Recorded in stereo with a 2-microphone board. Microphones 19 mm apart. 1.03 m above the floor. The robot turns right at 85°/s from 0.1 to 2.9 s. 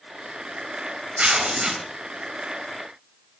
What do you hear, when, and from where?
1.2 s tearing paper: 75° right, 2.5 m; by 1.8 s 20° right, 2.5 m